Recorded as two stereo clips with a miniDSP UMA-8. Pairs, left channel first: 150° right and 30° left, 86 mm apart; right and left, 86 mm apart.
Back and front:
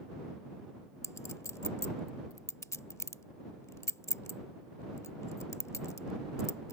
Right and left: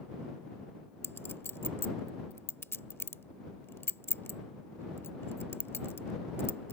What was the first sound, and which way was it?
A clink, 130° right.